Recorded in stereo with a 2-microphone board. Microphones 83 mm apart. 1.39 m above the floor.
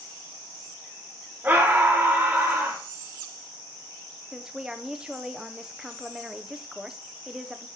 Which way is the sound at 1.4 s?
20° right (ahead or behind).